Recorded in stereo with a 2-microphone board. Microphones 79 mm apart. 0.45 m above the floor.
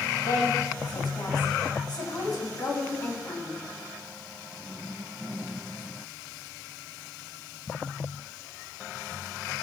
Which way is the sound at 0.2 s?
70° left (ahead or behind).